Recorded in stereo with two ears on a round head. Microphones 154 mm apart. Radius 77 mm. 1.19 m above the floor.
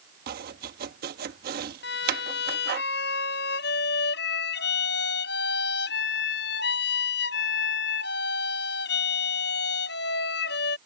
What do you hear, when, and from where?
0.3 s chopping: 60° right (ahead or behind)
1.8 s a violin: 70° left (ahead or behind)